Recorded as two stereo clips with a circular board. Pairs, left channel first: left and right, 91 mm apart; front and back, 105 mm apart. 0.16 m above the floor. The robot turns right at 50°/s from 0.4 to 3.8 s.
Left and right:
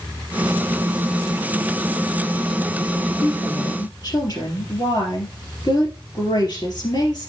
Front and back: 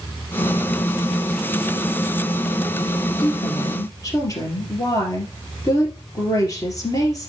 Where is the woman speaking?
25° left, 3 m; by 7.3 s 55° left, 3 m.